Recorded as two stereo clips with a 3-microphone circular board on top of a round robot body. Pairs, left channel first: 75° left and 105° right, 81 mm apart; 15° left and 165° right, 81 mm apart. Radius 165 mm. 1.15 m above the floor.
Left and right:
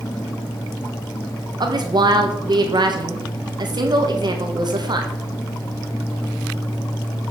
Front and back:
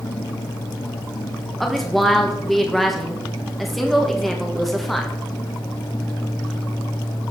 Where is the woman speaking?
75° right, 1.9 m.